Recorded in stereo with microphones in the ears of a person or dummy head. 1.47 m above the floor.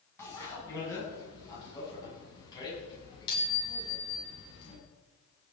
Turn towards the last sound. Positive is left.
turn(degrees=30)  # may be behind; listen again after turning